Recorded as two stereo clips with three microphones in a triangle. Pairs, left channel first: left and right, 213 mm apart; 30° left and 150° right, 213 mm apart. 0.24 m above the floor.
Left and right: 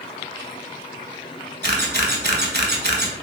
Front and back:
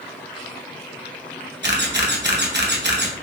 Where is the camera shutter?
125° right, 0.8 m.